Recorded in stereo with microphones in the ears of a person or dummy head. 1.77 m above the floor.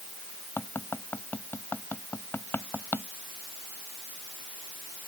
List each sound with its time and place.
0.6 s tapping: 5° left (ahead or behind)